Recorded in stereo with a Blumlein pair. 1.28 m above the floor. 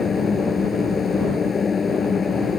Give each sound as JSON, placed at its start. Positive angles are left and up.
{"t": 0.0, "sound": "a machine running", "azimuth_deg": 15}